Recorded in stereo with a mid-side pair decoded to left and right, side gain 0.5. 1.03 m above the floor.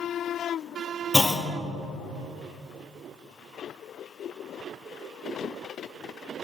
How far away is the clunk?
About 0.7 m.